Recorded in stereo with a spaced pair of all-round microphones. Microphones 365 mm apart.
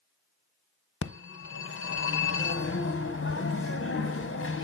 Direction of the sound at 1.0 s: 35° left (ahead or behind).